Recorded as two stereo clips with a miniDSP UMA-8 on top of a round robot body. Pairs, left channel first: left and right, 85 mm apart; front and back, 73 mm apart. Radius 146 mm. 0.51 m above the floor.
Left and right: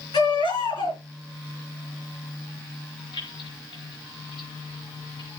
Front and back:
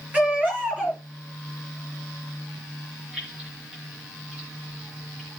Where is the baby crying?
110° left, 5.5 m.